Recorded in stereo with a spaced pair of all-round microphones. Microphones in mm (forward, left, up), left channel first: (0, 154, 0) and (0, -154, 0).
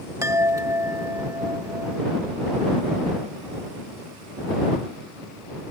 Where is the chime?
10° right (ahead or behind).